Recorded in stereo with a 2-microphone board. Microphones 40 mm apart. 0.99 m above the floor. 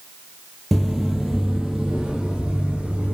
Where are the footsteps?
Centre (ahead or behind), 1.0 m; by 3.1 s 25° right (ahead or behind), 1.8 m.